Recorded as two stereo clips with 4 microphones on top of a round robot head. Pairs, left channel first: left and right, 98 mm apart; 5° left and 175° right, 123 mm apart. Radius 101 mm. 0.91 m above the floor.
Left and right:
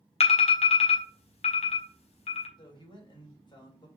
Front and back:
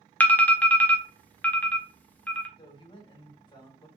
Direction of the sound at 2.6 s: 55° left.